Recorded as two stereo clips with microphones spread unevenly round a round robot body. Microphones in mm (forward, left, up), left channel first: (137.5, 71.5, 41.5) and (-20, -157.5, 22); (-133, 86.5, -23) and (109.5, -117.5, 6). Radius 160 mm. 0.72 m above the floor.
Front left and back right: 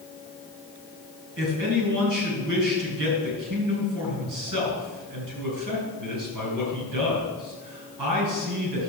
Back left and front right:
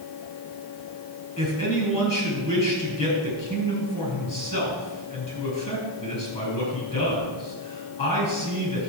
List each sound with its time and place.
1.4 s a man speaking: 150° right, 4.5 m